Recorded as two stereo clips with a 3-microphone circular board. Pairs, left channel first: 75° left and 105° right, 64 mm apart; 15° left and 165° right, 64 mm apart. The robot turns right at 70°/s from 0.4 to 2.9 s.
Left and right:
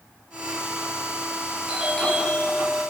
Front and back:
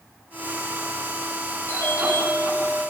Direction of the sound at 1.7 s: 35° right.